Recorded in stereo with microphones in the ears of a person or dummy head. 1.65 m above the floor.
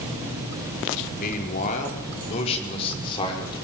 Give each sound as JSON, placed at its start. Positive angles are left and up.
{"t": 1.2, "sound": "a man speaking", "side_deg": 45, "distance_m": 5.0}